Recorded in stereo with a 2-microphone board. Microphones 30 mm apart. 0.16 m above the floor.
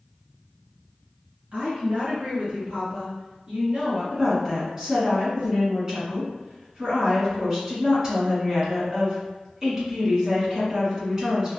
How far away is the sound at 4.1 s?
About 1.3 m.